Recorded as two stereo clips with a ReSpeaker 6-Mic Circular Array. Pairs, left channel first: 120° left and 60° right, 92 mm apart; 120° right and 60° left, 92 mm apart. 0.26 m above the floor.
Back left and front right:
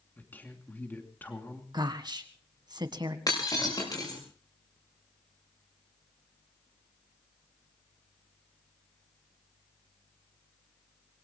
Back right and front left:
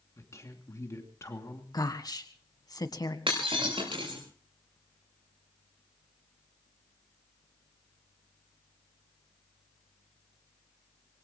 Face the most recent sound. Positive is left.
turn(degrees=75)